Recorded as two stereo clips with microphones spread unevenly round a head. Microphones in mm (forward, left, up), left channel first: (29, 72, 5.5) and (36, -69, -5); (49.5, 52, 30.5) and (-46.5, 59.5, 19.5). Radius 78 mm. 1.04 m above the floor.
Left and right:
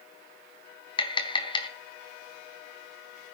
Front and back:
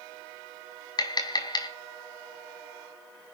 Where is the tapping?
35° left, 4 m.